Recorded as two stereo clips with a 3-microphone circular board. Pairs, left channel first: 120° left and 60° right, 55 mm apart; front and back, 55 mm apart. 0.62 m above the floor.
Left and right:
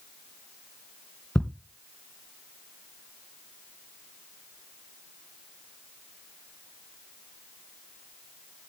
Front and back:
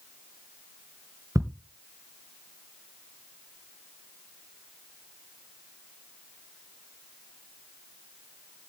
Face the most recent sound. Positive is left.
turn(degrees=-165)